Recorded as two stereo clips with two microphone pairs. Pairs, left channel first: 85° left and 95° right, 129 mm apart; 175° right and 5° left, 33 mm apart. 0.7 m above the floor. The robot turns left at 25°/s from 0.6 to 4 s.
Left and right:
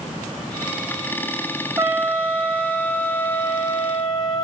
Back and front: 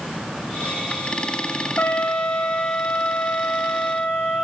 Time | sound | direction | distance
1.8 | a trumpet | 160° right | 1.9 m